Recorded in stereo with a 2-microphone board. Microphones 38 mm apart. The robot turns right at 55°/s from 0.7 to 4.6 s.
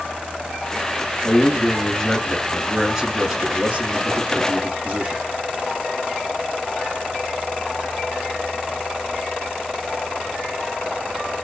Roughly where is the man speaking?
Left.